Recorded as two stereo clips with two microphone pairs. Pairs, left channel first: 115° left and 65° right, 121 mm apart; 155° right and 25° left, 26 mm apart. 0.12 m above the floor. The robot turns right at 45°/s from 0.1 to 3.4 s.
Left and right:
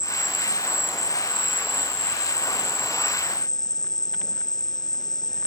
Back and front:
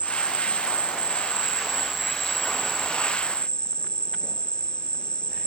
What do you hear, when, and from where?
0.0 s an insect: 20° left; by 5.5 s 165° left